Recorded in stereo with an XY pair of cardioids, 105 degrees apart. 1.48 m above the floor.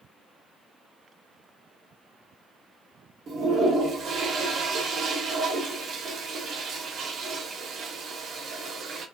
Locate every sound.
3.3 s a toilet flushing: 60° right, 0.7 m